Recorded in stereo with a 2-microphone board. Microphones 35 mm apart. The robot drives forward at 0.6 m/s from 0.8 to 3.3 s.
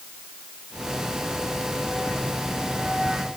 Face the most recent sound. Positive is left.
No sound to turn to.